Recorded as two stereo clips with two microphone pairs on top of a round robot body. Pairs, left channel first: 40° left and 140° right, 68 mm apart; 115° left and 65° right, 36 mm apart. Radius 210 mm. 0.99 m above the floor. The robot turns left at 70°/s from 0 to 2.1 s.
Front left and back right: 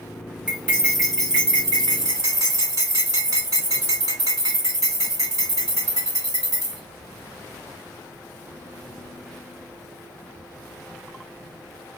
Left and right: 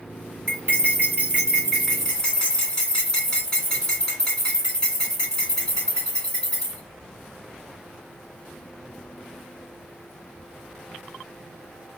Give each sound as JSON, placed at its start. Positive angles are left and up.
{"t": 0.5, "sound": "cutlery clinking", "azimuth_deg": -60, "distance_m": 2.5}